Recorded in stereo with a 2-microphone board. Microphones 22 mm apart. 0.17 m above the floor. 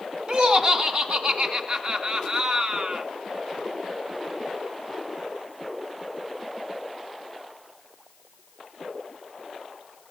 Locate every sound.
0.3 s laughter: 40° right (ahead or behind), 2 m